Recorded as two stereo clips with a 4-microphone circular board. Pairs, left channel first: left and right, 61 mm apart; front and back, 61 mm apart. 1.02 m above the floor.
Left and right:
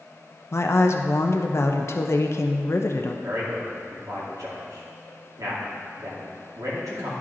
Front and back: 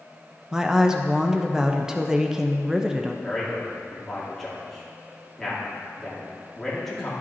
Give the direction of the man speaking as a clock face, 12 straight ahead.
3 o'clock.